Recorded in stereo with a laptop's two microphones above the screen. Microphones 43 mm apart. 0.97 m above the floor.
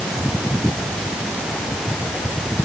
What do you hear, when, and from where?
Only background noise.